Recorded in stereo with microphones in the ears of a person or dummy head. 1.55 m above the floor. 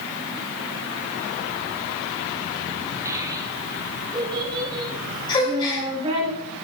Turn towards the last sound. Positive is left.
turn(degrees=30)  # may be behind; listen again after turning